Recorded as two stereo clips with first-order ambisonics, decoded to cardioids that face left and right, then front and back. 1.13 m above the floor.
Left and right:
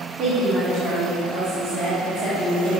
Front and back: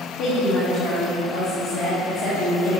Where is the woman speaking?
30° right, 1.7 m.